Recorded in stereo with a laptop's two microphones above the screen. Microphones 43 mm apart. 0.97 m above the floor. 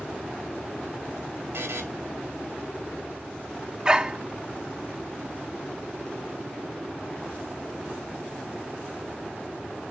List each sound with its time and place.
1.5 s a buzzer: 75° right (ahead or behind), 1.9 m
3.9 s a dog barking: 20° right (ahead or behind), 0.6 m